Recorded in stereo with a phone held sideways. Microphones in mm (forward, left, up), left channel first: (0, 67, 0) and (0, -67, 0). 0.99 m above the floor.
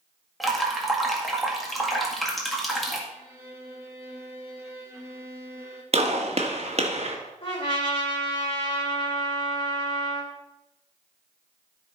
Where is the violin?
20° right (ahead or behind), 1.7 m.